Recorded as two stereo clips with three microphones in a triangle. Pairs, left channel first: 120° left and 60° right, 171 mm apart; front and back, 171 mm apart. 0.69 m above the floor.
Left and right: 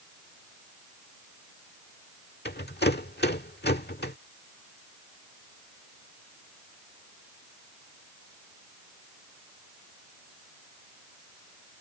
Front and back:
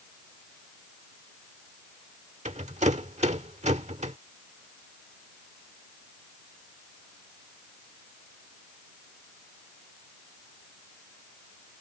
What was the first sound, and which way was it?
A rattle, 130° left.